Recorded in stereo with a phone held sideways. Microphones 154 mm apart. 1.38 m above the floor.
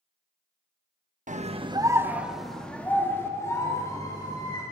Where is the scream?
55° right (ahead or behind), 1.6 m; by 4.6 s 25° left (ahead or behind), 5 m.